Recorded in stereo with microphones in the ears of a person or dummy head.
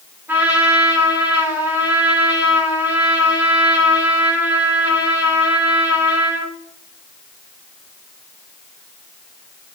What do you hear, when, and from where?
0.3 s a trumpet: 10° right (ahead or behind), 4.5 m